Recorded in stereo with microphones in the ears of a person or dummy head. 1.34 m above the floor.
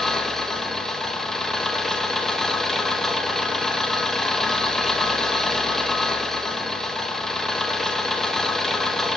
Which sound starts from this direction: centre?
An engine running, at 0.0 s.